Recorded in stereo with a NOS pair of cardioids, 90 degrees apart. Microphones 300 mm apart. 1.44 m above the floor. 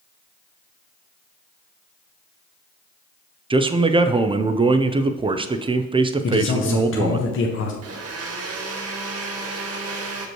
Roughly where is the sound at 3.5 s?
Ahead.